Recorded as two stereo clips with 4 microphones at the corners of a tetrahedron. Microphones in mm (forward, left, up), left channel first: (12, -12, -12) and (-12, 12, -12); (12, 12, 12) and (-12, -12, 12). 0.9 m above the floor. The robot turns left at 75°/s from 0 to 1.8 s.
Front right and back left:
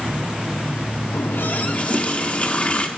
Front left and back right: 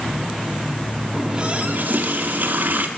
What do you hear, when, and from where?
1.1 s a running tap: 50° right, 1.2 m; by 2.9 s 100° right, 1.2 m